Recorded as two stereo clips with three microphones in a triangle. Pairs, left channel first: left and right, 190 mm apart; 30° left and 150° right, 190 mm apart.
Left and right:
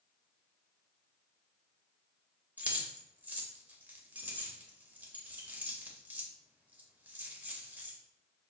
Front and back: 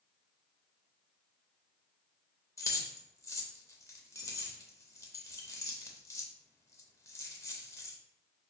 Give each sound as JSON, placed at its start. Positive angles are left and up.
{"t": 2.6, "sound": "keys jangling", "azimuth_deg": -20, "distance_m": 0.5}